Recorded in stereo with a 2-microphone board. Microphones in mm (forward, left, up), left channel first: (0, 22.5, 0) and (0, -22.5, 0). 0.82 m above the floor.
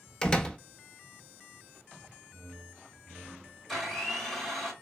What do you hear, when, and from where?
0.2 s a door slam: 20° left (ahead or behind), 0.7 m
2.3 s a whoosh: 15° right (ahead or behind), 0.6 m
3.7 s a blender: 5° left (ahead or behind), 3 m